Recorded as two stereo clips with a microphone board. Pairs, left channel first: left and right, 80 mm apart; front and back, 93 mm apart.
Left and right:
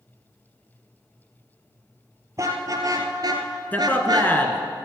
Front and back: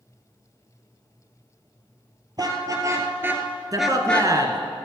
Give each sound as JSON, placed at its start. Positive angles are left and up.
{"t": 2.4, "sound": "a car horn", "azimuth_deg": -135, "distance_m": 2.5}
{"t": 3.7, "sound": "a man speaking", "azimuth_deg": 150, "distance_m": 1.7}